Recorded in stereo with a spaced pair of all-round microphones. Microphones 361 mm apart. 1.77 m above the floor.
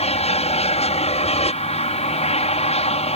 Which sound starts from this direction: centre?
An aircraft, at 0.0 s.